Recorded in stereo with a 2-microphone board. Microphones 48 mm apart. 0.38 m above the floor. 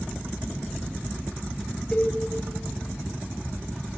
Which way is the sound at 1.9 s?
20° left (ahead or behind).